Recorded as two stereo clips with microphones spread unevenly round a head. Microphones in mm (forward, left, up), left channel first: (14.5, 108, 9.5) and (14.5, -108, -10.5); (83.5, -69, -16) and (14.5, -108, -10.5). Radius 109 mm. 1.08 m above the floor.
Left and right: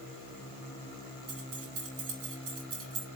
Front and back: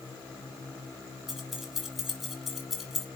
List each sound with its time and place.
1.3 s keys jangling: 60° right, 4 m